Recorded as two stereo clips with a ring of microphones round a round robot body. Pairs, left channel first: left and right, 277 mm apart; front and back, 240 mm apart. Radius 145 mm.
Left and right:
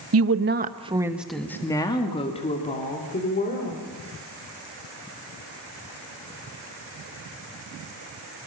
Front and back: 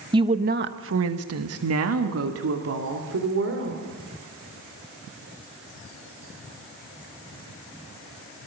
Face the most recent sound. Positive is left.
turn(degrees=150)